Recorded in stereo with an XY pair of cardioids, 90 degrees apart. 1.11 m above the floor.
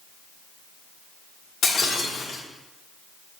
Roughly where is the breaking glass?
Ahead left.